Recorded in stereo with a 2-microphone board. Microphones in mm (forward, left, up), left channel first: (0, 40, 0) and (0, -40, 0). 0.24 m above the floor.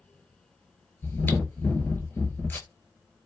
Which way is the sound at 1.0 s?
25° left (ahead or behind).